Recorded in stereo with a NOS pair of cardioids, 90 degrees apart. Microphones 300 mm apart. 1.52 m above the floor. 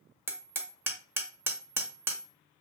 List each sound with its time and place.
0.3 s hammering: 10° right, 0.9 m